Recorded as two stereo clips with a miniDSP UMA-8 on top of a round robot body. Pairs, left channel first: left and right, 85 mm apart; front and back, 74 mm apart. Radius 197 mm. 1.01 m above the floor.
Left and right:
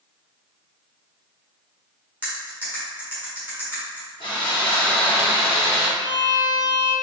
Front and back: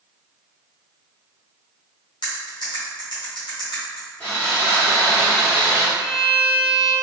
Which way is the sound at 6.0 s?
45° left.